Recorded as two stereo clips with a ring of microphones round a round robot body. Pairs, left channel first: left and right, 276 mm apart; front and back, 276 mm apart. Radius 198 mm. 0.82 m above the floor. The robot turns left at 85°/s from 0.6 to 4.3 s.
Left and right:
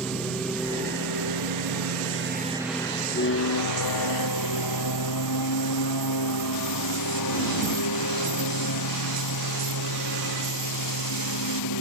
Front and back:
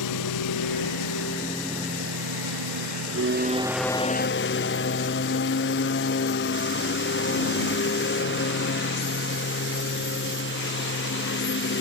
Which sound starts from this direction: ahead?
A lawn mower, at 0.0 s.